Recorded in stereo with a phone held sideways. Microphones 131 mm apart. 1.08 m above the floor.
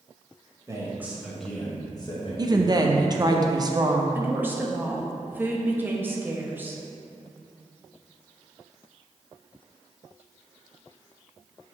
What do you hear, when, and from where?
0.7 s a man speaking: 25° right (ahead or behind), 1.5 m; by 2.9 s 60° left (ahead or behind), 1.7 m
2.4 s a woman speaking: 30° right (ahead or behind), 0.7 m
4.2 s a woman speaking: 15° right (ahead or behind), 1.0 m